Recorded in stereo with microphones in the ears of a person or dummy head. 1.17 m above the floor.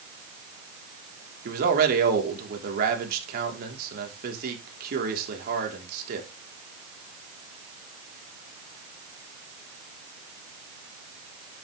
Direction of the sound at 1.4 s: 55° right (ahead or behind).